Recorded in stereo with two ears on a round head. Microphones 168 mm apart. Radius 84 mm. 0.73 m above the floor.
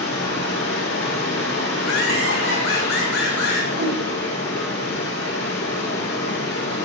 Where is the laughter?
65° left (ahead or behind), 5.5 m.